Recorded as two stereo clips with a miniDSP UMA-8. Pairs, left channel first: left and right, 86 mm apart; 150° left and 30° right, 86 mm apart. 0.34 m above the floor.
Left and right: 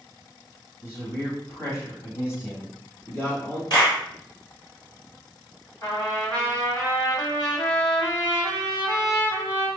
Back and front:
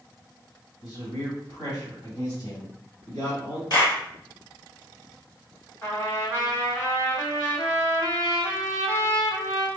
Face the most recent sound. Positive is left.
turn(degrees=105)